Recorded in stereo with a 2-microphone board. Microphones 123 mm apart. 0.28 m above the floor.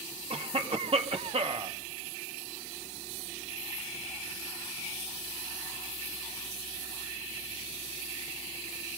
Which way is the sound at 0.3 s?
55° right (ahead or behind).